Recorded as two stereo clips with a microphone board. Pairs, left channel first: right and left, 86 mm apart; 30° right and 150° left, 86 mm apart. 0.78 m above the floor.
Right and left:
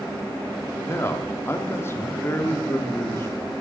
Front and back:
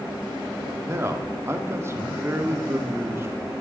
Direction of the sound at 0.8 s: 150° right.